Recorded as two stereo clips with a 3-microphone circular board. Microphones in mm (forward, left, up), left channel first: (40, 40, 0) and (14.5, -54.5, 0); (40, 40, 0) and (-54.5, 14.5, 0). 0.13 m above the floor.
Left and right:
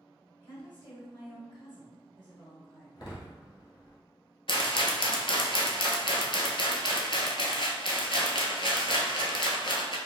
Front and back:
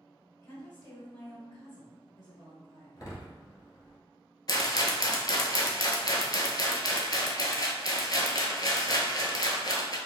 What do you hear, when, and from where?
0.4 s a woman speaking: 55° left, 1.8 m
3.0 s a door slam: 50° left, 1.2 m
4.5 s a rattle: 55° left, 0.7 m